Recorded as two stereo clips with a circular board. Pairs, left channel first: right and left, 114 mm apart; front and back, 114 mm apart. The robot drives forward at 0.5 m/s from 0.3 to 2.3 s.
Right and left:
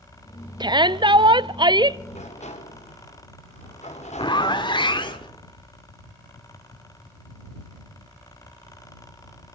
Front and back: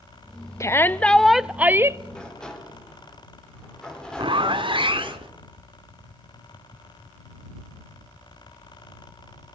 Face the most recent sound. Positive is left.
turn(degrees=-140)